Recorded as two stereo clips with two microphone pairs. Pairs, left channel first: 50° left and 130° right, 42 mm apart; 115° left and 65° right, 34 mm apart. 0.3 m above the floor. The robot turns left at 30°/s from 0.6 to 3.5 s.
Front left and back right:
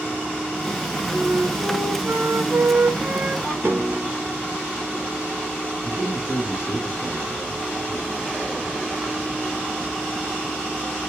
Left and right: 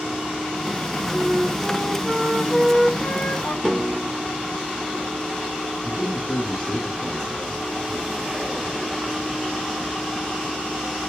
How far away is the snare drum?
About 1.6 m.